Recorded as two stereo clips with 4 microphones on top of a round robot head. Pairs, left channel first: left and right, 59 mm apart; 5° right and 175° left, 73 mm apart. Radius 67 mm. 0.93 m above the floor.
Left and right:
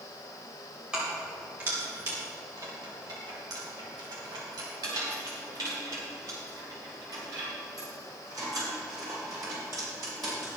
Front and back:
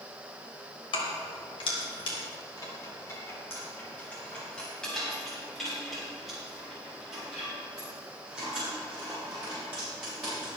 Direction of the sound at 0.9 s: 10° right.